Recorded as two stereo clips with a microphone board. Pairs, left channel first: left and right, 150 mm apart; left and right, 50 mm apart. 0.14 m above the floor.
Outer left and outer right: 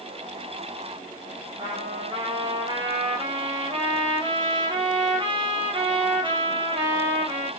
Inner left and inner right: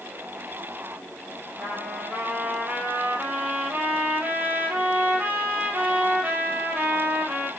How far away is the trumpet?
About 1.5 m.